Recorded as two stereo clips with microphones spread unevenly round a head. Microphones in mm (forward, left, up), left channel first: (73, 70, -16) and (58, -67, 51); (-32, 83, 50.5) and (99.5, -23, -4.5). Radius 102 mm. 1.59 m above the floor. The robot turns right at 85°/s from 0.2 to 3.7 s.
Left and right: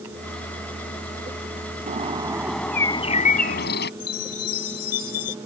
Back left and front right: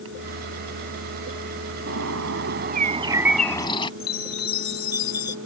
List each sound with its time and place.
1.9 s a bird: 75° right; by 3.9 s 85° left
4.0 s a chime: 120° left